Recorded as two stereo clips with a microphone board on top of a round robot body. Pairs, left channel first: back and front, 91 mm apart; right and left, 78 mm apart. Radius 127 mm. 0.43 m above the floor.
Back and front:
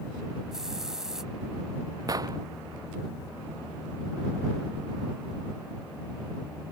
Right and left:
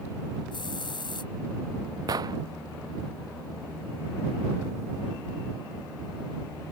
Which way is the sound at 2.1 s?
50° left.